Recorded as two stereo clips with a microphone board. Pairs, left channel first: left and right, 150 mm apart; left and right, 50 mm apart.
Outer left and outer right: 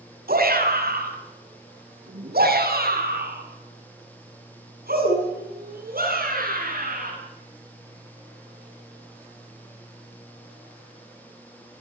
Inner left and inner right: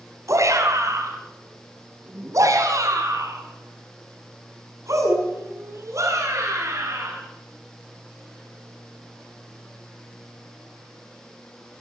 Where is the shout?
70° right (ahead or behind), 5 m; by 7.1 s 65° right (ahead or behind), 7 m.